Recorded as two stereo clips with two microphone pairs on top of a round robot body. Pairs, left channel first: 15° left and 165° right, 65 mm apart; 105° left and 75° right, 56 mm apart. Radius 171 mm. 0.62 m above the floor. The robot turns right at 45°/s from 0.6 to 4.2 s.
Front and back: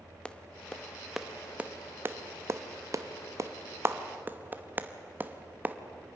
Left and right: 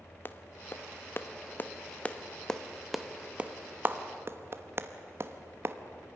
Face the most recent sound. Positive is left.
turn(degrees=-115)